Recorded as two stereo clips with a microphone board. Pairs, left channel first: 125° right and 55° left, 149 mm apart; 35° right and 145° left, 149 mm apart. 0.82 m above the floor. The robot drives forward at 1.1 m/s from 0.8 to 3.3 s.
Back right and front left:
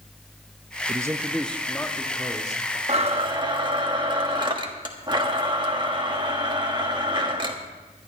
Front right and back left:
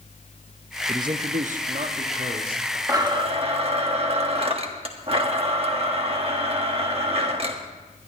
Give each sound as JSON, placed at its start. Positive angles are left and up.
{"t": 0.9, "sound": "a man speaking", "azimuth_deg": 85, "distance_m": 0.5}
{"t": 2.9, "sound": "a blender", "azimuth_deg": 85, "distance_m": 1.3}